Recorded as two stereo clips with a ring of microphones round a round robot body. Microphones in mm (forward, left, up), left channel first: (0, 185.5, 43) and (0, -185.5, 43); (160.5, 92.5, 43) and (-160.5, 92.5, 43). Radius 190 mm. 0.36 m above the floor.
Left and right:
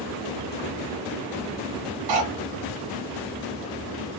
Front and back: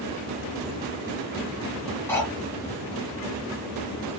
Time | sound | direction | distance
2.1 | cutlery clinking | 85° right | 2 m